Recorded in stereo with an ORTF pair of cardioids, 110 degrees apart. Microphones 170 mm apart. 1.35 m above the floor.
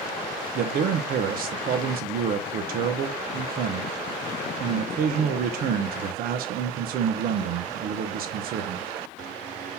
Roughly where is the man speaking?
Ahead right.